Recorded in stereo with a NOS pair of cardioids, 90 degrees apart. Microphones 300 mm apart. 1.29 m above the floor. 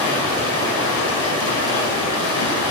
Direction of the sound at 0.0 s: 70° left.